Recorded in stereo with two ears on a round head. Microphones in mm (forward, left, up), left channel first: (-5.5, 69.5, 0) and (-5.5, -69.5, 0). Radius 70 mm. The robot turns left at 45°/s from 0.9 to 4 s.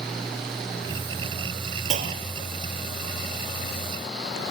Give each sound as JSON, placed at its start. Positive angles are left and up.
{"t": 1.9, "sound": "a clunk", "side_deg": -50, "distance_m": 2.0}